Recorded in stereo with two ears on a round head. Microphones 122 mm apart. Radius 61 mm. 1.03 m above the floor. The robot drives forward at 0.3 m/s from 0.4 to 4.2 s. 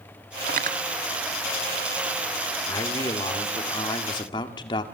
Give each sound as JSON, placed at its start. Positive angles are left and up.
{"t": 0.5, "sound": "cutlery clinking", "side_deg": -65, "distance_m": 1.5}
{"t": 2.7, "sound": "a man speaking", "side_deg": 25, "distance_m": 2.5}